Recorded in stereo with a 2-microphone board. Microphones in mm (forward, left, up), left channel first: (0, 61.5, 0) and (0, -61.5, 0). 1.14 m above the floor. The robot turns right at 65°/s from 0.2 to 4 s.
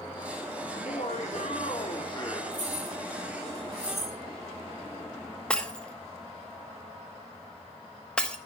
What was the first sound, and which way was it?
Laughter, 45° left.